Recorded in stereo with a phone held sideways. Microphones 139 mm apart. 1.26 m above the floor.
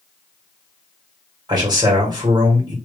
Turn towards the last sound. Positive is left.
turn(degrees=-30)  # may be behind; listen again after turning